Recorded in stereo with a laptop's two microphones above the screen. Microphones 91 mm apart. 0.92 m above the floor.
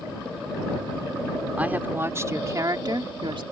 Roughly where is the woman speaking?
Centre.